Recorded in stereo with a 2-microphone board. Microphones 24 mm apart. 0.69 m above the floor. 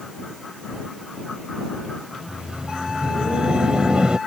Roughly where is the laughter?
Right.